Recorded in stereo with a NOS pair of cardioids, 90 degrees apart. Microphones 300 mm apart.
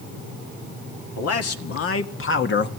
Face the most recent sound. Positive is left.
turn(degrees=35)